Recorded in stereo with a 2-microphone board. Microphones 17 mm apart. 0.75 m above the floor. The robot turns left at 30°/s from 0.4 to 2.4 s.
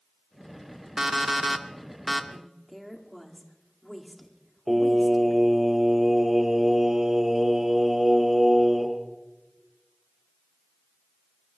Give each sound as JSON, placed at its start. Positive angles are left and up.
{"t": 1.0, "sound": "an alarm clock", "azimuth_deg": -150, "distance_m": 1.0}
{"t": 2.3, "sound": "a woman speaking", "side_deg": 0, "distance_m": 1.9}
{"t": 4.7, "sound": "singing", "side_deg": -30, "distance_m": 3.0}